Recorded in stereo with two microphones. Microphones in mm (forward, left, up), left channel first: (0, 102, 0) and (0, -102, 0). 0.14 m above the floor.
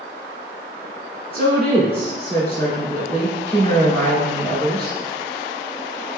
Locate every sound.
1.3 s a woman speaking: 30° left (ahead or behind), 1.7 m